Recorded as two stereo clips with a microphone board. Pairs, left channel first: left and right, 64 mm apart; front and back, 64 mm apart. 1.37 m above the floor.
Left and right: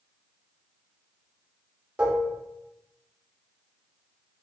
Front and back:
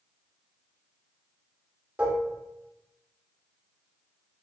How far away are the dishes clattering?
About 0.6 m.